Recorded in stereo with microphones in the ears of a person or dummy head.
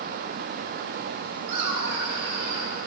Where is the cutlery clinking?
I don't hear cutlery clinking.